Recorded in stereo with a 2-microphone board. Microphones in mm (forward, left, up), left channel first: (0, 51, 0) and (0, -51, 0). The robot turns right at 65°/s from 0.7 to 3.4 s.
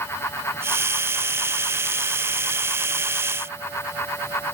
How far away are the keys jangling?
I don't hear keys jangling.